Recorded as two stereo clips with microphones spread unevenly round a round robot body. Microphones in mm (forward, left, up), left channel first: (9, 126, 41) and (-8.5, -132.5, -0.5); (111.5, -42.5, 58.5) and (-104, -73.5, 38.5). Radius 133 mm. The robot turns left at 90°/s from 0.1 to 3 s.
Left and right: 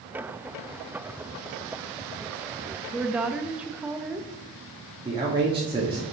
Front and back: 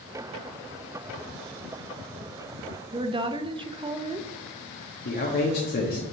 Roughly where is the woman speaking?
Behind right.